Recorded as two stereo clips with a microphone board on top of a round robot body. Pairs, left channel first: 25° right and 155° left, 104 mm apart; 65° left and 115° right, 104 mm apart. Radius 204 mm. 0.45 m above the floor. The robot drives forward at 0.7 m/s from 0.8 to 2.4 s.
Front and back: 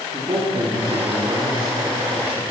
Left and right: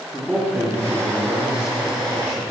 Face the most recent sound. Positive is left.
turn(degrees=175)